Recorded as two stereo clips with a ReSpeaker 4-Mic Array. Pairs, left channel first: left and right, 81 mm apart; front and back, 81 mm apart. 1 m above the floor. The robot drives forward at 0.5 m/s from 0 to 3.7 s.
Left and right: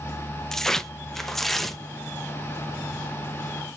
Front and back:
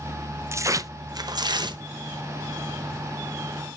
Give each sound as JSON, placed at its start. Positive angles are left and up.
{"t": 0.5, "sound": "tearing paper", "azimuth_deg": 170, "distance_m": 0.6}